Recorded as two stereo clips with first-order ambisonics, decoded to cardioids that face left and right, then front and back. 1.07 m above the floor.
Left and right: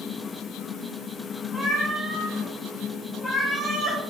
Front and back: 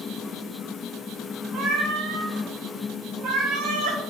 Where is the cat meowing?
Straight behind, 0.6 m.